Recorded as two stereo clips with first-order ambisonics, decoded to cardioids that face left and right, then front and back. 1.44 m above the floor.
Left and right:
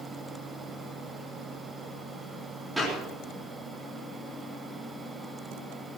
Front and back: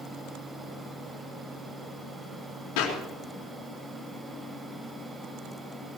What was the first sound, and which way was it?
A clap, 5° right.